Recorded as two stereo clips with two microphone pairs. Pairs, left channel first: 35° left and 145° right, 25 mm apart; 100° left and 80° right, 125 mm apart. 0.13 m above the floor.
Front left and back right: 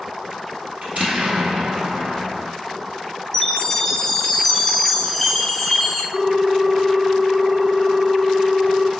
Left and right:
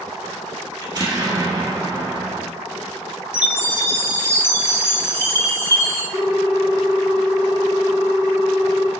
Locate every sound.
0.8 s an explosion: 130° right, 1.3 m
3.3 s a chime: 100° left, 1.6 m
6.1 s a ringtone: 105° right, 0.8 m